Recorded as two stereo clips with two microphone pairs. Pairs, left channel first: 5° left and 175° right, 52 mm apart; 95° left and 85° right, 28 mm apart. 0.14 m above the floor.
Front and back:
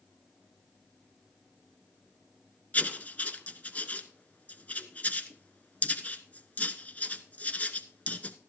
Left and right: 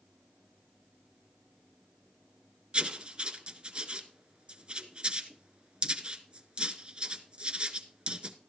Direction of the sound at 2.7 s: 45° right.